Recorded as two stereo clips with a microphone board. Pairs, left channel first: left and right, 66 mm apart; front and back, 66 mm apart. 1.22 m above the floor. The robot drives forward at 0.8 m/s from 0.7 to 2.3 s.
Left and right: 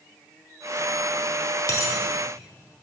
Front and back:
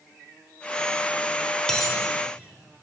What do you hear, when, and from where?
1.7 s a dropped coin: 80° left, 1.3 m; by 1.9 s 90° left, 1.3 m